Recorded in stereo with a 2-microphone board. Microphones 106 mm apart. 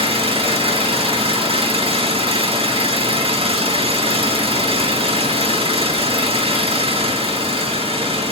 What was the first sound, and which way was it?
An engine running, 65° right (ahead or behind).